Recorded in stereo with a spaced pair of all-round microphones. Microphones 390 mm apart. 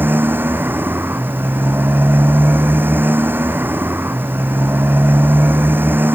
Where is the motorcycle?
5° right (ahead or behind).